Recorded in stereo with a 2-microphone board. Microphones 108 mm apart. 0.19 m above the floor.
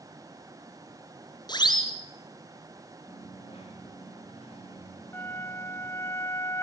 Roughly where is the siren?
Left.